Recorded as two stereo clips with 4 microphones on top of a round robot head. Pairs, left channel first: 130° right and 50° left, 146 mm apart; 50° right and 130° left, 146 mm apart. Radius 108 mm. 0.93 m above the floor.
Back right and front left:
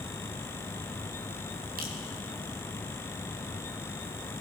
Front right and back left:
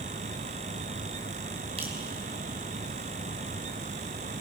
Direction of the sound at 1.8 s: 75° left.